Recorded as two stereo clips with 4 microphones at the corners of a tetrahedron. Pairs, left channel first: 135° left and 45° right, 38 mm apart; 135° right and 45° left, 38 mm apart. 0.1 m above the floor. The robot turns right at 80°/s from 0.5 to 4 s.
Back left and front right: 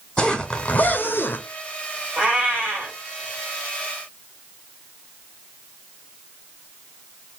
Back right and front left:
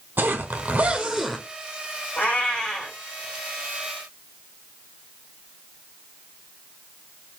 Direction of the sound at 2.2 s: 105° right.